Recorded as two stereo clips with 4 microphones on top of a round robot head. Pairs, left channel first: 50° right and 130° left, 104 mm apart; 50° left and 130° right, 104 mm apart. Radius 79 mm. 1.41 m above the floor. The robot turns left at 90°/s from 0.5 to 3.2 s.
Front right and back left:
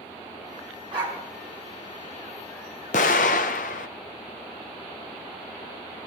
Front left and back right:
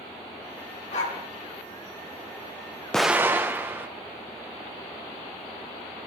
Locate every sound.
0.9 s a dog barking: 85° left, 3 m; by 1.2 s 60° left, 3 m
2.9 s an explosion: 35° right, 0.7 m; by 3.9 s 55° right, 0.7 m